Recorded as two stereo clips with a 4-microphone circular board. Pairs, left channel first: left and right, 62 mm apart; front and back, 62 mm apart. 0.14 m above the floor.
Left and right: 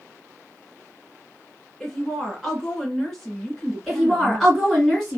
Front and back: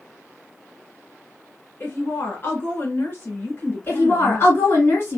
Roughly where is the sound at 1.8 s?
Ahead.